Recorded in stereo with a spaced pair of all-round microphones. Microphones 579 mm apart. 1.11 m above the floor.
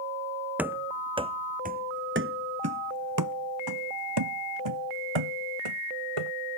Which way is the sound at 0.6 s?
5° right (ahead or behind).